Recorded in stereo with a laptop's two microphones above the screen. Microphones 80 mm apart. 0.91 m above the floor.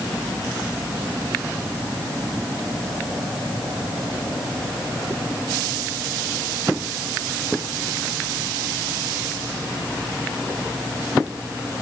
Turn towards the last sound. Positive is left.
No sound to turn to.